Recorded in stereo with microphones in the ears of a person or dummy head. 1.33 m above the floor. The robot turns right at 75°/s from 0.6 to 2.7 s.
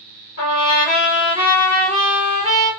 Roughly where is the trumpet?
Left.